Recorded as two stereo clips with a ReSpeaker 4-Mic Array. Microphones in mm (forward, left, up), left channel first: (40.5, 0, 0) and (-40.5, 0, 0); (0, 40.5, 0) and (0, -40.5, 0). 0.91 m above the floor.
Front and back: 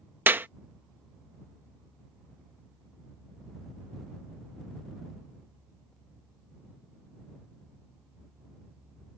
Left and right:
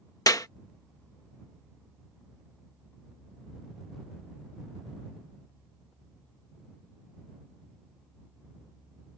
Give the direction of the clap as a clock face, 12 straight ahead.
8 o'clock.